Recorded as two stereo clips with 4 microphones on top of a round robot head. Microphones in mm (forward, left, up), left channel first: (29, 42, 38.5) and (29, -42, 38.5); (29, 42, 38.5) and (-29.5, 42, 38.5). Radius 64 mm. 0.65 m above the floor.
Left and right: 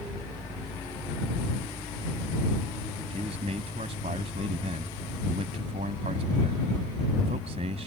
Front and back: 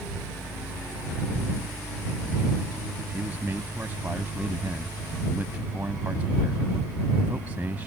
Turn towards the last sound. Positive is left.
turn(degrees=-105)